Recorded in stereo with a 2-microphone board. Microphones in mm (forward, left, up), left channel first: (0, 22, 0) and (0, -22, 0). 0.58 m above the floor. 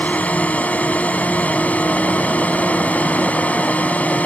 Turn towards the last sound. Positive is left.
turn(degrees=35)  # may be behind; listen again after turning